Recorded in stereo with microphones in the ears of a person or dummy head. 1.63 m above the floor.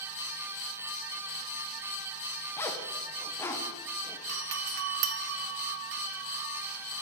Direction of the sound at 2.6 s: 15° left (ahead or behind).